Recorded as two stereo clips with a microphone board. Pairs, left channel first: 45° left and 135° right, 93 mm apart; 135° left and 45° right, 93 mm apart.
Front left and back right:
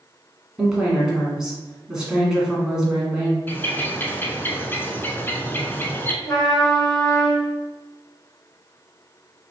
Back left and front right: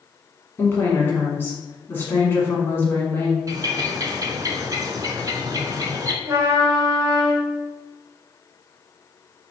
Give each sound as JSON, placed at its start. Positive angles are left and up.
{"t": 0.6, "sound": "a woman speaking", "azimuth_deg": 150, "distance_m": 1.2}
{"t": 3.5, "sound": "a bird", "azimuth_deg": -15, "distance_m": 0.5}
{"t": 6.2, "sound": "a trumpet", "azimuth_deg": 0, "distance_m": 1.5}